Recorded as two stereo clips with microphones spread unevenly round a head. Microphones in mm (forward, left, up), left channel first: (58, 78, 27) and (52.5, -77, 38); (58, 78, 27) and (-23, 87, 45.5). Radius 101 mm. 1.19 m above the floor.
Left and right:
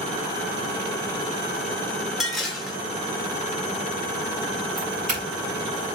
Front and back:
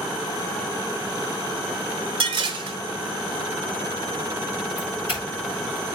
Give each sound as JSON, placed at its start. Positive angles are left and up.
{"t": 2.2, "sound": "dishes clattering", "azimuth_deg": 180, "distance_m": 1.0}
{"t": 4.8, "sound": "a doorbell", "azimuth_deg": -55, "distance_m": 5.5}